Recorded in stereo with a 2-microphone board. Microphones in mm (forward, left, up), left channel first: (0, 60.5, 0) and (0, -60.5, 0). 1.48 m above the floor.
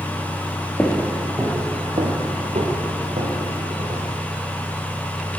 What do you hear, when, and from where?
0.8 s footsteps: 15° left (ahead or behind), 1.5 m; by 4.1 s 70° right (ahead or behind), 4.5 m